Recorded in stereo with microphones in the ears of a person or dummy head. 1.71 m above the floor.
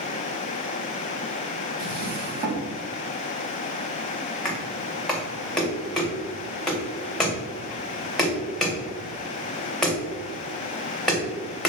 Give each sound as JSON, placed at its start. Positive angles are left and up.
{"t": 1.8, "sound": "a drawer", "side_deg": -50, "distance_m": 2.5}
{"t": 4.5, "sound": "knocking", "side_deg": 5, "distance_m": 2.5}